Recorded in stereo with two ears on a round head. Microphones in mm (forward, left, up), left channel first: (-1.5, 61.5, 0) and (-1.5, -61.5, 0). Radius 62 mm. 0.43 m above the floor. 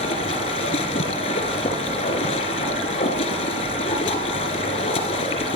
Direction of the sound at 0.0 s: 45° left (ahead or behind).